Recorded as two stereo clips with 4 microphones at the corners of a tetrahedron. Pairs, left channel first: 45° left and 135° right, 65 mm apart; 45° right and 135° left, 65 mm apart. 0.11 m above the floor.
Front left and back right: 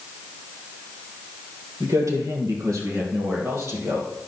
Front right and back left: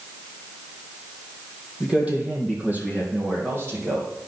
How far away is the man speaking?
About 3 m.